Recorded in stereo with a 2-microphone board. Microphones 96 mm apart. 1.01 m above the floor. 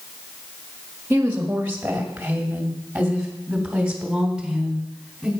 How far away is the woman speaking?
About 1.6 m.